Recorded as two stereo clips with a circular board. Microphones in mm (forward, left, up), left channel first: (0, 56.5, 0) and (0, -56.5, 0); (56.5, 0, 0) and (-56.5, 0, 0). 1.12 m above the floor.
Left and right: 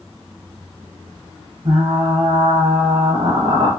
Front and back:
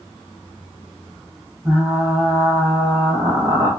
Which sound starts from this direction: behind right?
Frying, at 1.6 s.